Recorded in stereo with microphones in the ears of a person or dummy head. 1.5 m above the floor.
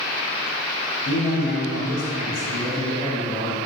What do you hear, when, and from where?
1.1 s a man speaking: 55° left (ahead or behind), 1.0 m; by 3.6 s 45° left (ahead or behind), 1.3 m